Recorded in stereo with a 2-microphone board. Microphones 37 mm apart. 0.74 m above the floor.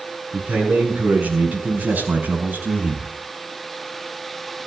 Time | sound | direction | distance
0.3 | a man speaking | 40° right (ahead or behind) | 7 m